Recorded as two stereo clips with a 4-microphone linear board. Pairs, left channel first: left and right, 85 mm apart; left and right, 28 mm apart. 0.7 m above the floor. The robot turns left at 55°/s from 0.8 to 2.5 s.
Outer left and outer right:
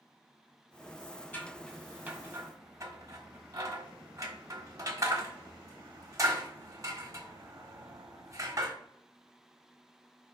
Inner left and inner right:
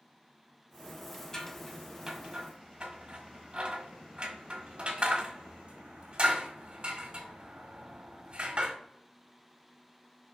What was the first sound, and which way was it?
Scissors, 20° left (ahead or behind).